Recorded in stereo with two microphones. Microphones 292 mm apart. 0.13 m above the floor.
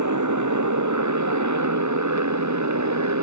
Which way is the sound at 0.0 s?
80° right.